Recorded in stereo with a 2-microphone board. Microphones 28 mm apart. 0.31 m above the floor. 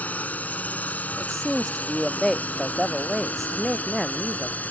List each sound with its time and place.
0.0 s a drone: 65° left (ahead or behind); by 4.7 s 70° left (ahead or behind)
1.2 s a man speaking: 10° left (ahead or behind)